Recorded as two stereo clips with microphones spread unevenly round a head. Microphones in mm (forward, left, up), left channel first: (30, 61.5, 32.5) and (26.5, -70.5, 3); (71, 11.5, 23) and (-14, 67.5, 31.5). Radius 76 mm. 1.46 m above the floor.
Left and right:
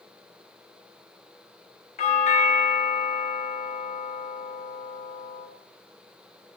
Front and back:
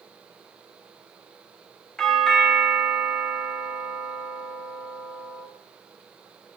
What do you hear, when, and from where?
2.0 s a doorbell: 50° left, 2 m